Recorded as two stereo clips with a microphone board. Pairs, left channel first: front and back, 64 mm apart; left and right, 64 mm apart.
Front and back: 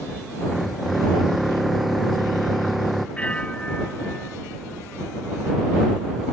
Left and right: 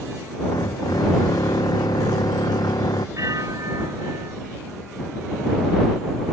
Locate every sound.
0.4 s a drill: 90° left
3.2 s a bell: 70° right